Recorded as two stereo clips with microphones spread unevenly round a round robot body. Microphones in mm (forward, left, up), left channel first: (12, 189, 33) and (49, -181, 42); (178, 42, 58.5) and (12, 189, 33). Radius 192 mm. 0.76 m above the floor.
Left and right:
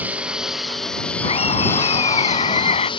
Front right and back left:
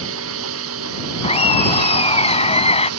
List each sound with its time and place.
0.0 s a lawn mower: 170° right; by 3.0 s 175° left
1.2 s laughter: 20° left